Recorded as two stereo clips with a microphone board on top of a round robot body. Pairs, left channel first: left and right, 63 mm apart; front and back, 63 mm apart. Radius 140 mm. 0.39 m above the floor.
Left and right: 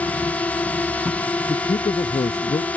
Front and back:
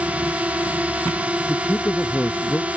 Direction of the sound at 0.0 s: 130° left.